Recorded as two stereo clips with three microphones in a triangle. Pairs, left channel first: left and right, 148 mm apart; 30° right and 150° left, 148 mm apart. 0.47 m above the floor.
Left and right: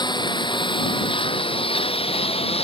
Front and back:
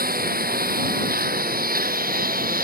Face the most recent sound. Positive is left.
turn(degrees=140)